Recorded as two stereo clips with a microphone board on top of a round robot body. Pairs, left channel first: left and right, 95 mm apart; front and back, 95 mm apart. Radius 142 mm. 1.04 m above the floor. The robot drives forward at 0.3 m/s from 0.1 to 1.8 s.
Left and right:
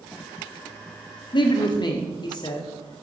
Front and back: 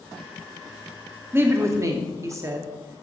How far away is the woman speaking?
About 0.8 m.